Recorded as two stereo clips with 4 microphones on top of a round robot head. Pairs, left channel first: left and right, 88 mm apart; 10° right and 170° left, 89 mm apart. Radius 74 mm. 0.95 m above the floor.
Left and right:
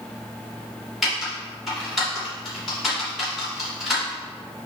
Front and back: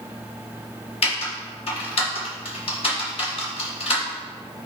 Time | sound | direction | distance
1.0 | typing on a keyboard | straight ahead | 2.5 m